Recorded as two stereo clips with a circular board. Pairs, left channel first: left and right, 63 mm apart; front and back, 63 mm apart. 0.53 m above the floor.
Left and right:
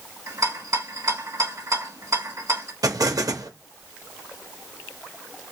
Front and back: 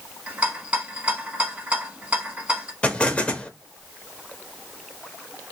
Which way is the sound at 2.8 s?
70° right.